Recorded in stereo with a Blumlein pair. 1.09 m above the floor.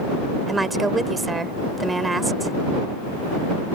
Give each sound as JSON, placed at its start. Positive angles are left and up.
{"t": 0.5, "sound": "a woman speaking", "azimuth_deg": -10}